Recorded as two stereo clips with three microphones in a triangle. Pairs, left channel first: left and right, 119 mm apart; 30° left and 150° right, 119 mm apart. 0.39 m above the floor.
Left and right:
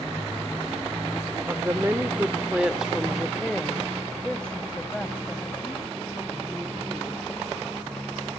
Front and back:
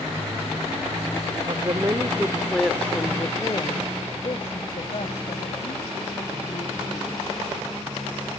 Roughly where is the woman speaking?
Behind right.